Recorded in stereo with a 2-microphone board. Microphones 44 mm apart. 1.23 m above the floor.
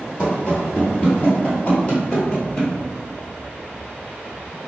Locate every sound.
0.2 s running footsteps: 35° left (ahead or behind), 1.5 m; by 2.7 s 20° left (ahead or behind), 1.6 m